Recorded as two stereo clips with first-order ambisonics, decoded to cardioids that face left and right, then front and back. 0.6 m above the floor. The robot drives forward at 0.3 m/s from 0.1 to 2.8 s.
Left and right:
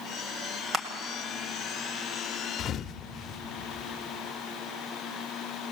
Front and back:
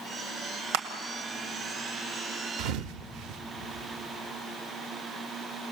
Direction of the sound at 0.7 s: 160° right.